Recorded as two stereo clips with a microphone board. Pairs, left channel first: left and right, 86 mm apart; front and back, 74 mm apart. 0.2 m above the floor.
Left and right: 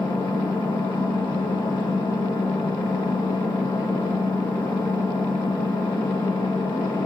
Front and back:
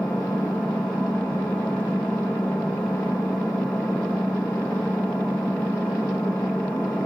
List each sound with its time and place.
0.0 s an engine running: 75° left, 7 m